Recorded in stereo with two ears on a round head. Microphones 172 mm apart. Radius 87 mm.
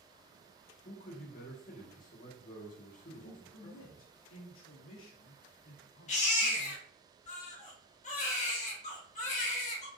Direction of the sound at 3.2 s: 75° left (ahead or behind).